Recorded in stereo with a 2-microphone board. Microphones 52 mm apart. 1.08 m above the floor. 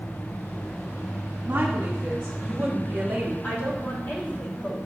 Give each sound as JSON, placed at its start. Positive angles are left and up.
{"t": 1.4, "sound": "a woman speaking", "side_deg": -35, "distance_m": 2.5}
{"t": 3.4, "sound": "a woman speaking", "side_deg": 45, "distance_m": 3.5}